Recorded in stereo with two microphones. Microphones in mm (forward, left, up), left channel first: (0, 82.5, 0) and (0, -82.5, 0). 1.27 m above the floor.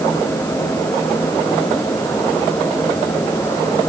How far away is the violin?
I don't hear a violin.